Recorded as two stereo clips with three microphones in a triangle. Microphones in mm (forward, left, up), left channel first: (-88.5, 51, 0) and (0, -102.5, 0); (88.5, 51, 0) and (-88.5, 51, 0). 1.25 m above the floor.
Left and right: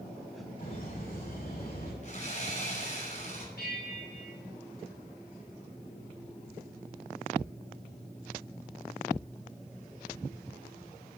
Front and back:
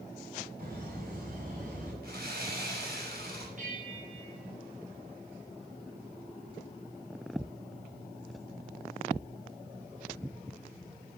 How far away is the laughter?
About 6 m.